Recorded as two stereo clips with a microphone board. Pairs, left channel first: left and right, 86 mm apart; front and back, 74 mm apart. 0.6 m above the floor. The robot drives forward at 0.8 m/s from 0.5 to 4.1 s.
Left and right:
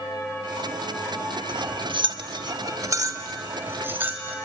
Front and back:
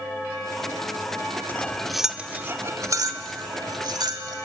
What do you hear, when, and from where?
1.5 s cutlery clinking: 65° right, 0.9 m; by 4.3 s 155° right, 1.9 m